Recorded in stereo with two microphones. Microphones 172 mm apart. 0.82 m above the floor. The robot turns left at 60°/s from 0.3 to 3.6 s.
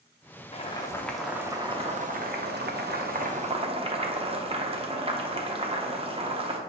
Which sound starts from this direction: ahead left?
Boiling, at 0.5 s.